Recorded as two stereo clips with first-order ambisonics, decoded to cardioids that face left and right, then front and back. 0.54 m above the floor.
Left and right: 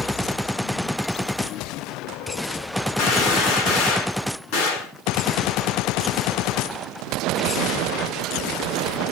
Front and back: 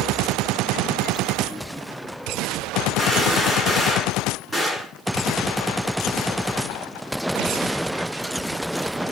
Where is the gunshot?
90° left, 6.5 m.